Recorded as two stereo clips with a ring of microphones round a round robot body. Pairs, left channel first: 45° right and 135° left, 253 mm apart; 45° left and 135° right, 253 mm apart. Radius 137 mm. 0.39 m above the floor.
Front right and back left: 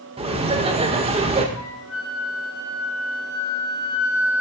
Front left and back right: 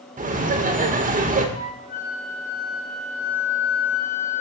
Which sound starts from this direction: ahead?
A flute, at 1.6 s.